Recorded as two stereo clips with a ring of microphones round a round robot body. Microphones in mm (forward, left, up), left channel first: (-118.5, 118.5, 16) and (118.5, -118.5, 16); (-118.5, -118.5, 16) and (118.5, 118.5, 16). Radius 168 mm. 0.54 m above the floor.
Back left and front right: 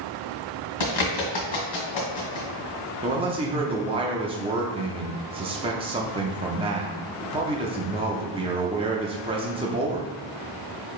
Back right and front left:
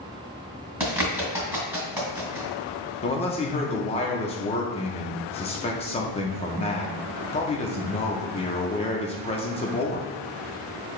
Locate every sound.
0.8 s a bird: 130° left, 1.9 m
3.0 s a man speaking: 95° right, 0.6 m